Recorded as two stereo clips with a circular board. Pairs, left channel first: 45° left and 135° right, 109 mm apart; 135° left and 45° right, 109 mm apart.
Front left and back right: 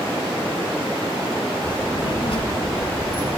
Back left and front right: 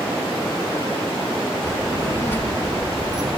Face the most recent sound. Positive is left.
turn(degrees=35)